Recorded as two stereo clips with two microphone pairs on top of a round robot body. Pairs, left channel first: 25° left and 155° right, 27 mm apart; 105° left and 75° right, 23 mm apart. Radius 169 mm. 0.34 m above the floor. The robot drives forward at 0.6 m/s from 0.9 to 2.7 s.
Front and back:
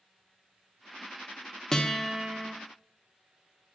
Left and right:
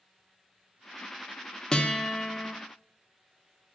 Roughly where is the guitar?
Left.